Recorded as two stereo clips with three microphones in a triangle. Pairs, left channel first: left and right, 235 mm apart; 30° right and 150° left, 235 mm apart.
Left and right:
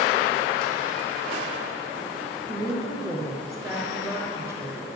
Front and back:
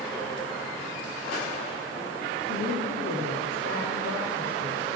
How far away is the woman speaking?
About 3 m.